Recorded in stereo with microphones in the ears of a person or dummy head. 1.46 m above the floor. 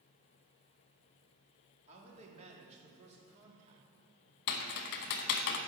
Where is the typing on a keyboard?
55° left (ahead or behind), 1.1 m.